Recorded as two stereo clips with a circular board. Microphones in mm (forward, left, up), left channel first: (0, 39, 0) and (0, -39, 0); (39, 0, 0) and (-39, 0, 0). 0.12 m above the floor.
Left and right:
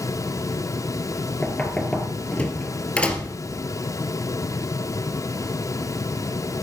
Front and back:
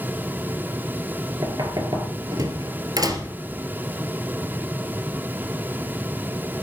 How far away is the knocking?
About 2 m.